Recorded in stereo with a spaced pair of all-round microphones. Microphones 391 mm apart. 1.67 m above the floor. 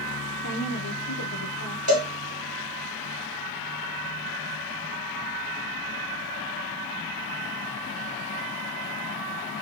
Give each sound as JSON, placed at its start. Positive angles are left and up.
{"t": 0.4, "sound": "a woman speaking", "side_deg": 50, "distance_m": 1.0}
{"t": 1.9, "sound": "a cowbell", "side_deg": 40, "distance_m": 1.7}